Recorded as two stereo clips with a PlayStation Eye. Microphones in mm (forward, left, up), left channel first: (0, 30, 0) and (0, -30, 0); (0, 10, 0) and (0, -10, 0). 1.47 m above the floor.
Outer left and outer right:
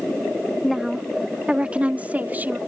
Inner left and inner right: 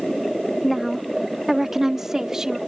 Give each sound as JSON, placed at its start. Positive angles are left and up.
{"t": 0.6, "sound": "a woman speaking", "side_deg": 0}